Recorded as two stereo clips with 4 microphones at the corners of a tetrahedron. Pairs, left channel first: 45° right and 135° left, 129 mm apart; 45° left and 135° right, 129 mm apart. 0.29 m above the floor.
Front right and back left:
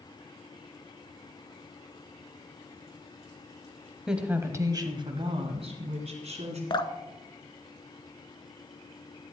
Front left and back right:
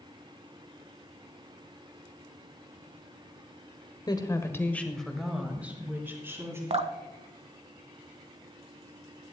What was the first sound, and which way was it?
A woman speaking, 50° left.